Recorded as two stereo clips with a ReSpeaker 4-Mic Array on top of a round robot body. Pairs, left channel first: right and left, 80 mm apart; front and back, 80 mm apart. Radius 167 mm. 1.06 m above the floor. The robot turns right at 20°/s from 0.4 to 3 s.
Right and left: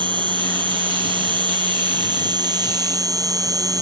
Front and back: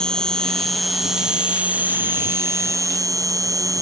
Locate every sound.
0.0 s an insect: 80° left; by 3.8 s 130° left